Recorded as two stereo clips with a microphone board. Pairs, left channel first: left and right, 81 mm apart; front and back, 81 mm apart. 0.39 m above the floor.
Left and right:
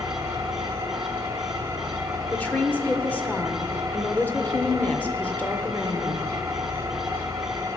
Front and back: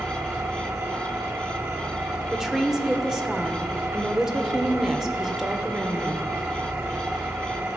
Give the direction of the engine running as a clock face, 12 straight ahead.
4 o'clock.